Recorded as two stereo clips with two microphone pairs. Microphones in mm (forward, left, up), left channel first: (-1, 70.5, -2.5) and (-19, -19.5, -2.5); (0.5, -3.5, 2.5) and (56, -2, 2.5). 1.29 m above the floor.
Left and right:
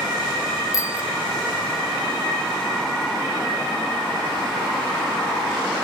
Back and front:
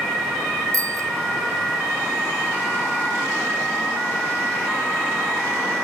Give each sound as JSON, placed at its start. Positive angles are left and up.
{"t": 0.7, "sound": "a bicycle bell", "azimuth_deg": 25}